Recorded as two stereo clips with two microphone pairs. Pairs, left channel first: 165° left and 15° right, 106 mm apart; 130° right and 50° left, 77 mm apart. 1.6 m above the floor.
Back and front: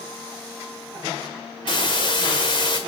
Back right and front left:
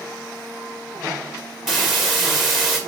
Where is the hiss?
135° left, 1.9 m.